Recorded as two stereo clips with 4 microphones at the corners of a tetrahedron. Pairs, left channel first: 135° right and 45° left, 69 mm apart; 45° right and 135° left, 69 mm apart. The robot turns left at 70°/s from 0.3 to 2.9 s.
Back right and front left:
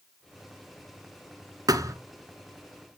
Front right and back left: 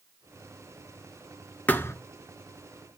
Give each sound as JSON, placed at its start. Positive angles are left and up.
{"t": 1.7, "sound": "a thud", "azimuth_deg": 25, "distance_m": 1.3}